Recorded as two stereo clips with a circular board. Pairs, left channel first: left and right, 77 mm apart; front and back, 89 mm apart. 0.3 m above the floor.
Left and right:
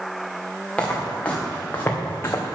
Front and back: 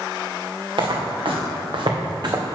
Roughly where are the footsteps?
Behind.